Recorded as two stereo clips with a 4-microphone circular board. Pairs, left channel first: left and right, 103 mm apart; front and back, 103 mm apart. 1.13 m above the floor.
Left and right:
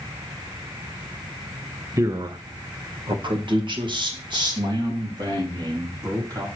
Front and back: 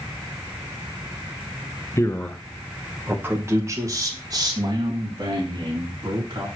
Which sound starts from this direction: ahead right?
A man speaking, at 2.0 s.